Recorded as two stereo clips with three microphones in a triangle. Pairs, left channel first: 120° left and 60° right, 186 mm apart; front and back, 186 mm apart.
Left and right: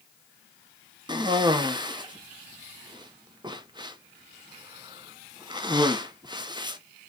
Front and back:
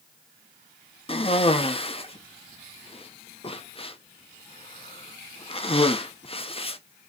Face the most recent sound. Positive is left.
turn(degrees=-20)